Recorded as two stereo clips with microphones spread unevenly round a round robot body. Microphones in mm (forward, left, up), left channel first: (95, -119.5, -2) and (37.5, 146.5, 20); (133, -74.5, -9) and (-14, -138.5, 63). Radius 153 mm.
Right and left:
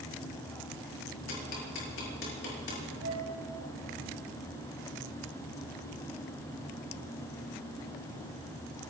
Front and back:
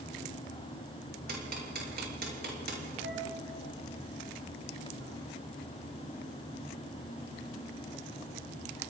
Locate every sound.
1.3 s ticking: 130° right, 6 m
3.0 s a flute: 160° left, 4.5 m